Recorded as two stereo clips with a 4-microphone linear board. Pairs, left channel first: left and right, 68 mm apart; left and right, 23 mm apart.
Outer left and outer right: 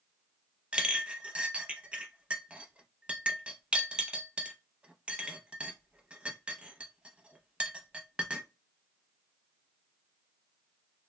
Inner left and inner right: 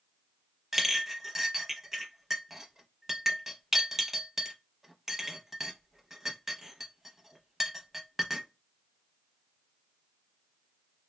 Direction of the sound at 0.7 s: 15° right (ahead or behind).